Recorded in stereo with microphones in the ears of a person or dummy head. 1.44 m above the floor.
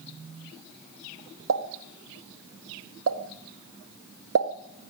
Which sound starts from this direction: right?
A pop, at 1.5 s.